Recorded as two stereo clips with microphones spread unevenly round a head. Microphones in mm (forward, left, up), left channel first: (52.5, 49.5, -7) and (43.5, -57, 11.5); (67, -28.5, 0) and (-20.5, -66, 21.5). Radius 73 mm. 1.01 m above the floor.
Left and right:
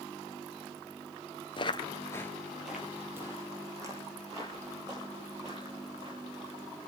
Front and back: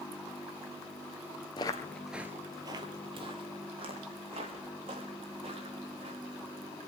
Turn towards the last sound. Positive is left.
turn(degrees=-155)